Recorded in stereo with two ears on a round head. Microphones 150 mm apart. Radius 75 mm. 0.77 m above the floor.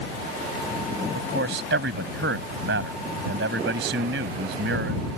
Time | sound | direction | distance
1.1 | a man speaking | 75° right (ahead or behind) | ?